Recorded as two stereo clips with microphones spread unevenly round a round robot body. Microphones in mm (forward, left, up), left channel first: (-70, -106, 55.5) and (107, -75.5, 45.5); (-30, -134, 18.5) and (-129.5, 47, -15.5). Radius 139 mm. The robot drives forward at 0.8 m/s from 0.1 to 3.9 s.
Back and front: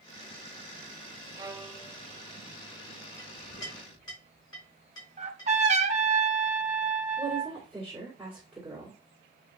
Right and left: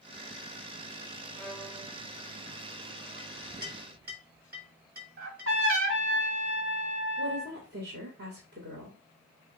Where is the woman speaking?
90° left, 2 m.